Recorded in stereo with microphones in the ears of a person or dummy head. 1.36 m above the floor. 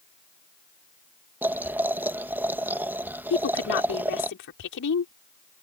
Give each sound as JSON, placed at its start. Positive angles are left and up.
{"t": 1.4, "sound": "boiling", "side_deg": -5}
{"t": 3.3, "sound": "a woman speaking", "side_deg": 55}